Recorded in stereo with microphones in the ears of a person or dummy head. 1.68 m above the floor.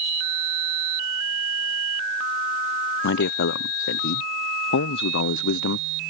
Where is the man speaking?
60° left (ahead or behind).